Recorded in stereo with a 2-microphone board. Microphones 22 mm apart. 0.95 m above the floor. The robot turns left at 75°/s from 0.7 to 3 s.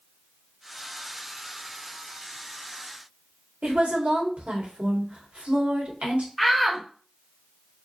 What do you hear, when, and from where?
3.6 s a woman speaking: 70° right (ahead or behind), 2.5 m
6.4 s a shout: centre (ahead or behind), 1.3 m